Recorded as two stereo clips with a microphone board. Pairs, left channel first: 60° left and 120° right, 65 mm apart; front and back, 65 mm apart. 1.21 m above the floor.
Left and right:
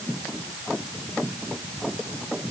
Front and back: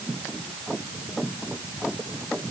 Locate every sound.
Only background noise.